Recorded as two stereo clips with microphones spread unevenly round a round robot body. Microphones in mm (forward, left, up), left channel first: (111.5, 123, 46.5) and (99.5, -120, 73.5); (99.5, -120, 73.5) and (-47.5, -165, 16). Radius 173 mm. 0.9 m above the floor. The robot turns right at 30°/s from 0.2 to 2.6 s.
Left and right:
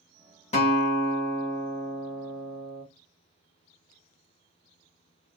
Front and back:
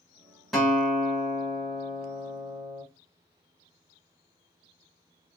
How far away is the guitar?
About 1.0 m.